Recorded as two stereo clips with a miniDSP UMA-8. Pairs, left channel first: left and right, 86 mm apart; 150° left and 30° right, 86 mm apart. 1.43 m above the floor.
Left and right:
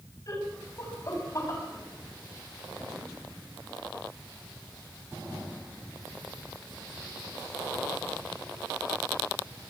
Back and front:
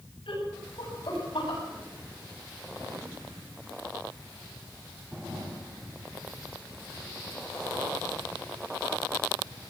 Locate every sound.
0.3 s laughter: 135° left, 8 m; by 1.6 s 140° left, 9 m